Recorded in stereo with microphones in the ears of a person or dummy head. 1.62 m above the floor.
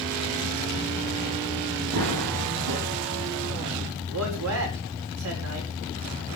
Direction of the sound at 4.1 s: 75° right (ahead or behind).